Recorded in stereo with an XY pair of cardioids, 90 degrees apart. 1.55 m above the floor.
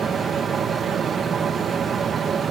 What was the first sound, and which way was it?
A fan, 60° right.